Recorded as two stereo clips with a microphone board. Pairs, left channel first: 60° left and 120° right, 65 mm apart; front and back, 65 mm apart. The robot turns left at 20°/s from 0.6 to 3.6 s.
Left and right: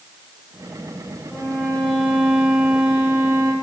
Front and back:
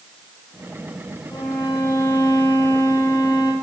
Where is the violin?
Straight ahead, 4 m; by 3.5 s 45° right, 4 m.